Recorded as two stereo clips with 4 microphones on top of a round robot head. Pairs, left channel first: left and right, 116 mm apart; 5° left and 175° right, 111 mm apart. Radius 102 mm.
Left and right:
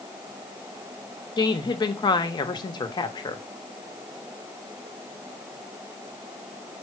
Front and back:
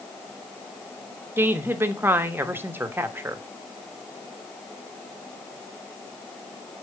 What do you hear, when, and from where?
1.4 s a woman speaking: 125° left, 1.0 m